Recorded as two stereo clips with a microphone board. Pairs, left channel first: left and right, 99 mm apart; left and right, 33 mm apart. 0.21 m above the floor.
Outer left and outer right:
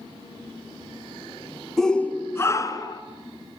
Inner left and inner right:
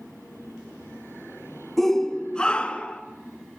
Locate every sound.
1.8 s a shout: 5° left (ahead or behind), 1.7 m; by 3.0 s 40° left (ahead or behind), 3 m